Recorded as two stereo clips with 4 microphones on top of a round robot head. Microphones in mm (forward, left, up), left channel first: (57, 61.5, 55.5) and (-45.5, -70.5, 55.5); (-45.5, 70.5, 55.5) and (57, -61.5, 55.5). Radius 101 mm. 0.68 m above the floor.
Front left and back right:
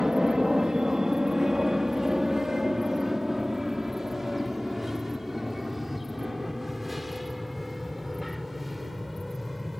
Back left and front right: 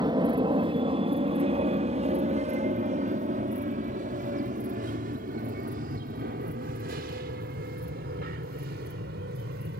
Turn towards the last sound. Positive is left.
turn(degrees=-40)